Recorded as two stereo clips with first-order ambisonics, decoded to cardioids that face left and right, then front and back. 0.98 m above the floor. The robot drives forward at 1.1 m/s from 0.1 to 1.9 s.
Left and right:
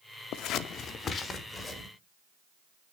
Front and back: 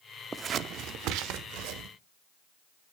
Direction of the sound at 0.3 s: 105° left.